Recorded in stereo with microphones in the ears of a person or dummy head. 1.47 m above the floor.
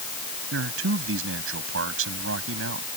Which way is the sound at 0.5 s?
85° right.